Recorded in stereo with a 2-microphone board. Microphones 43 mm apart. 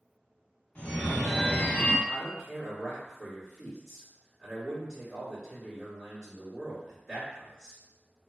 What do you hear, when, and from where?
0.8 s a phone ringing: 35° left (ahead or behind), 0.8 m
2.1 s a man speaking: 15° right (ahead or behind), 1.6 m